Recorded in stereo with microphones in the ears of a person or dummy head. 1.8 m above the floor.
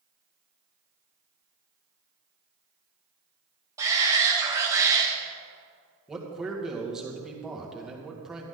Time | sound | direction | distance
3.8 | a shout | 15° right (ahead or behind) | 2 m
6.1 | a man speaking | 5° right (ahead or behind) | 1.9 m